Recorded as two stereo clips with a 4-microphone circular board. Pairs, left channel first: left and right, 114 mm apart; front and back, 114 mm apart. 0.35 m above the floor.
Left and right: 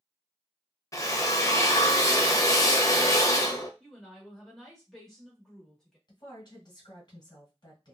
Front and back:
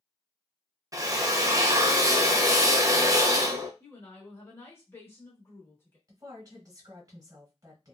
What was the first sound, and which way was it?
A drill, 135° left.